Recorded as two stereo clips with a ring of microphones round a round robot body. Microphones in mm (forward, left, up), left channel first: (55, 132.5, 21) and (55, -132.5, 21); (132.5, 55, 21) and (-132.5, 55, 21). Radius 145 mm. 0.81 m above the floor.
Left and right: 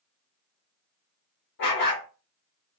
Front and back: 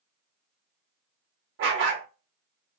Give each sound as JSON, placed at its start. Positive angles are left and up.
{"t": 1.6, "sound": "a dog barking", "azimuth_deg": 140, "distance_m": 0.7}